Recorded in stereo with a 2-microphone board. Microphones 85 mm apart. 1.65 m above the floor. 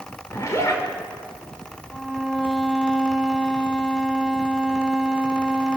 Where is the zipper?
35° left (ahead or behind), 5 m.